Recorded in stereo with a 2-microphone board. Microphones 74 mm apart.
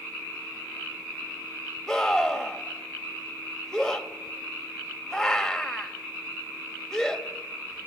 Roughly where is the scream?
Centre.